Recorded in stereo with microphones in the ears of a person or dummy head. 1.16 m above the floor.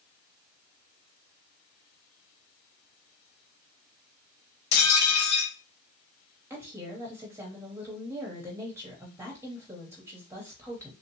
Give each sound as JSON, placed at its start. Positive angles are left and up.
{"t": 4.7, "sound": "dishes clattering", "side_deg": 55, "distance_m": 1.7}
{"t": 6.5, "sound": "a woman speaking", "side_deg": -10, "distance_m": 0.7}